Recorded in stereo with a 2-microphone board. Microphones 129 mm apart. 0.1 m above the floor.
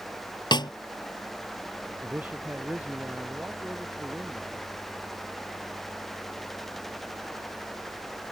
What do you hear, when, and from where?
0.5 s a snare drum: 35° left (ahead or behind)
2.0 s a man speaking: 15° right (ahead or behind)